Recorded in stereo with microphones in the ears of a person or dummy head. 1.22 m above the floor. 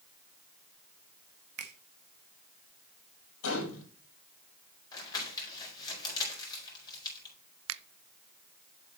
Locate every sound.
1.6 s a finger snap: 55° right (ahead or behind), 1.1 m
3.4 s a gunshot: 75° left (ahead or behind), 5 m
4.9 s crumpling: 25° left (ahead or behind), 4.5 m
7.7 s a finger snap: 80° right, 0.5 m